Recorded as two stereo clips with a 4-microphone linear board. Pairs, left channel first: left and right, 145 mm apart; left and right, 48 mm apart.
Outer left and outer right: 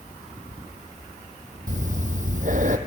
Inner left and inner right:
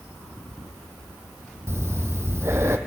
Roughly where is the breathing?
Right.